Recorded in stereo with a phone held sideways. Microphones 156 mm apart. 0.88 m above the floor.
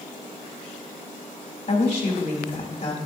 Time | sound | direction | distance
1.7 | a woman speaking | 50° left (ahead or behind) | 3 m